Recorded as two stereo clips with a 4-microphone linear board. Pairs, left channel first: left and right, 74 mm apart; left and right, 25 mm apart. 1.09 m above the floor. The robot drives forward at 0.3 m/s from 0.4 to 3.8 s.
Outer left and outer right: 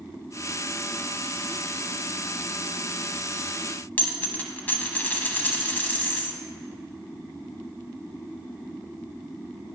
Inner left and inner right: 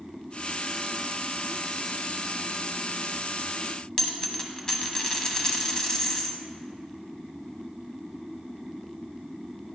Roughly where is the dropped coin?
Left.